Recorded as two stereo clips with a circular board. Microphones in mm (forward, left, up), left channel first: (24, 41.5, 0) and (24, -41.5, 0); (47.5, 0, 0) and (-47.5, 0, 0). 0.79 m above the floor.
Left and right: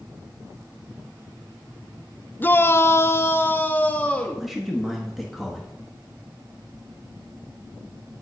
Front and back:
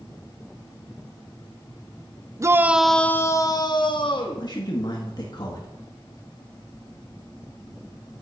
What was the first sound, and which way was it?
A shout, 140° left.